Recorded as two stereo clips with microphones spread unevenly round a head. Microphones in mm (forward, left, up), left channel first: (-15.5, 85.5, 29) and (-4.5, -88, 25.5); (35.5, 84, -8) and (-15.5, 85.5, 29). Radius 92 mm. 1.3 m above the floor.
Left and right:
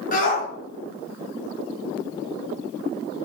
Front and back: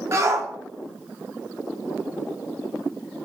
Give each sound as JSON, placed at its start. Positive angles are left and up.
{"t": 0.1, "sound": "a shout", "azimuth_deg": 140, "distance_m": 4.0}